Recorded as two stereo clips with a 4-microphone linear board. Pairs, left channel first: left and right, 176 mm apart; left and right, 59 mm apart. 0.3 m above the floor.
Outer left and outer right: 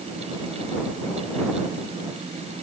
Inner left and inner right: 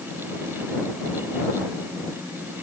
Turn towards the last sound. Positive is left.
No sound to turn to.